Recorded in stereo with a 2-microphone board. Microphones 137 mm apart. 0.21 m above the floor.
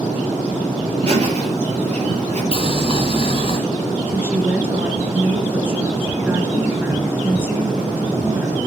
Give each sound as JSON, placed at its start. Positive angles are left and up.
{"t": 1.0, "sound": "laughter", "side_deg": -50, "distance_m": 5.5}
{"t": 2.5, "sound": "boiling", "side_deg": 45, "distance_m": 2.5}
{"t": 4.1, "sound": "a woman speaking", "side_deg": -15, "distance_m": 3.5}